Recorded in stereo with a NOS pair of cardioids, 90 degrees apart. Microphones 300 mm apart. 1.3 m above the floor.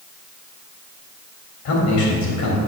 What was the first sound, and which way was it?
A man speaking, 65° left.